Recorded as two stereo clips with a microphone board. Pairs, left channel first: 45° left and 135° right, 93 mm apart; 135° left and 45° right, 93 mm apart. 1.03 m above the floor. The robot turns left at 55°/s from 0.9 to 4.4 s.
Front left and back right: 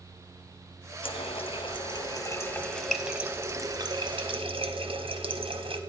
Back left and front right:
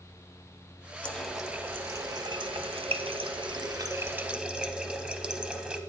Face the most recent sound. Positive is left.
turn(degrees=-125)